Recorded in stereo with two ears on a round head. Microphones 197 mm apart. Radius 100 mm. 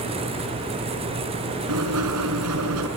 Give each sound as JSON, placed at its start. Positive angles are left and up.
{"t": 1.7, "sound": "writing", "side_deg": -85, "distance_m": 6.0}